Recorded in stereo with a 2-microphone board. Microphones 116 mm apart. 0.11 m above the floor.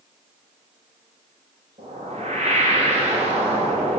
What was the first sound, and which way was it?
A whoosh, 55° right (ahead or behind).